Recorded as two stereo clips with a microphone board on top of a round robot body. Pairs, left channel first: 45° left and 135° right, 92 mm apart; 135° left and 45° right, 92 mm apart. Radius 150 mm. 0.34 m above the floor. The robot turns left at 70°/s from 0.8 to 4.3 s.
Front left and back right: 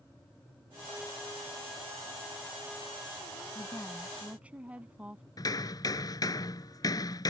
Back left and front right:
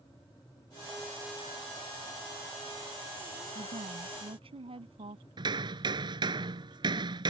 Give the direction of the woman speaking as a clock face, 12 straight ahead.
12 o'clock.